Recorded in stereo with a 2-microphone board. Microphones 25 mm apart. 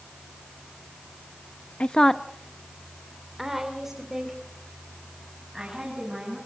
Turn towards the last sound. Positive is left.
turn(degrees=-20)  # may be behind; listen again after turning